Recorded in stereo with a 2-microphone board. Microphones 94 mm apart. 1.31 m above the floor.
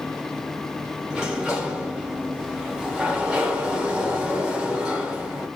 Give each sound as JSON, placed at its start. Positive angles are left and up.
{"t": 1.1, "sound": "a sliding door", "side_deg": -10, "distance_m": 0.8}